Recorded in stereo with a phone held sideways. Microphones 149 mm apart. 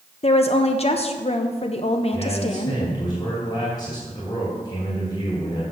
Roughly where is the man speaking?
Left.